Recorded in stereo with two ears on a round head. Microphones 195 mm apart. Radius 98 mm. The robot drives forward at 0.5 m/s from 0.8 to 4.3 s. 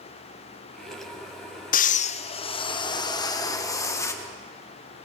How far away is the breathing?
About 0.6 m.